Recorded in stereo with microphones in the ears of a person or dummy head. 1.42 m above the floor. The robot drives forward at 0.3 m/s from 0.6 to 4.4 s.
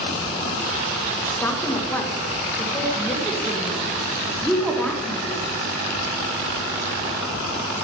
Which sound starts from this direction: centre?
A woman speaking, at 1.3 s.